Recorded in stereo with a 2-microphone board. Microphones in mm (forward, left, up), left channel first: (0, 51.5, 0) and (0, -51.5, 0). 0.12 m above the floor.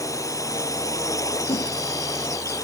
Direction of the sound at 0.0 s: 30° left (ahead or behind).